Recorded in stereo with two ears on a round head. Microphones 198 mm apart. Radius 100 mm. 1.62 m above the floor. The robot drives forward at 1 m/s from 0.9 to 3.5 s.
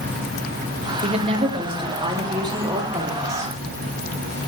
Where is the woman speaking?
30° right (ahead or behind), 2.5 m; by 3.5 s 15° right (ahead or behind), 5 m.